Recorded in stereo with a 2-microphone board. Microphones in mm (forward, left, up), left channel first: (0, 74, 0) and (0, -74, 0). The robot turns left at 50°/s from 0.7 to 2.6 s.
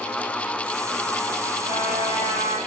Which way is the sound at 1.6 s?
55° right.